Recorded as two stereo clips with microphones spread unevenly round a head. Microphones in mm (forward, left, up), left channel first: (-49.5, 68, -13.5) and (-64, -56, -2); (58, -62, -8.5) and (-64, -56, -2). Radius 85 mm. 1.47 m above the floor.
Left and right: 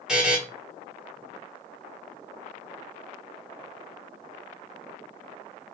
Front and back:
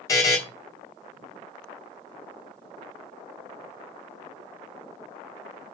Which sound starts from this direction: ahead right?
A buzzer, at 0.1 s.